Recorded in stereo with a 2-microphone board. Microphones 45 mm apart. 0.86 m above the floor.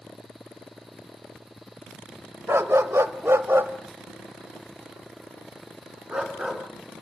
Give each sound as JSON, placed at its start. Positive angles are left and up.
{"t": 2.5, "sound": "a dog barking", "side_deg": -65, "distance_m": 1.3}